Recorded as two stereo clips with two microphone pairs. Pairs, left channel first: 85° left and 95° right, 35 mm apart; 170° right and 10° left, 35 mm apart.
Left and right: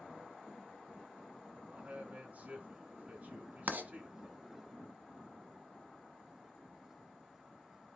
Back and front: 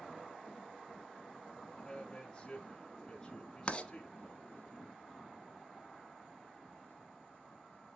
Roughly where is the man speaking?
Right.